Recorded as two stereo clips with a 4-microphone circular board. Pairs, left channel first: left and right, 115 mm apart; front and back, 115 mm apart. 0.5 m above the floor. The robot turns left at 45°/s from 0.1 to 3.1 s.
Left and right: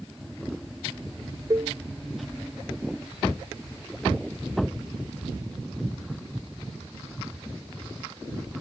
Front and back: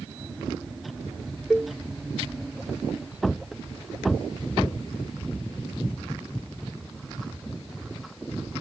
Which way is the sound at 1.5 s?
90° right.